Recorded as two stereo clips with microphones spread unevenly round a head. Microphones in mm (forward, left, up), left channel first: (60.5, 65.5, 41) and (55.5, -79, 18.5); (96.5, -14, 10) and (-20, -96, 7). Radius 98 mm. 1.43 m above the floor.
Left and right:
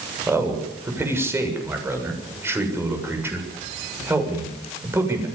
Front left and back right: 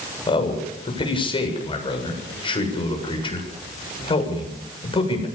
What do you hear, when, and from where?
0.3 s a man speaking: 20° right, 7 m